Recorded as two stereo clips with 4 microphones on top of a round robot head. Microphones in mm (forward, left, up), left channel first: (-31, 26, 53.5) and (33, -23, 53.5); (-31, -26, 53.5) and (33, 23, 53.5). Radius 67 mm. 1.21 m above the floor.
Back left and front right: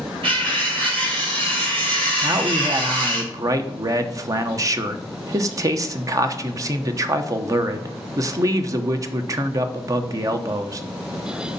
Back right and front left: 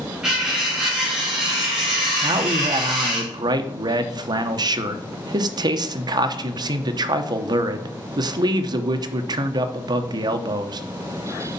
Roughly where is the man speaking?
Ahead.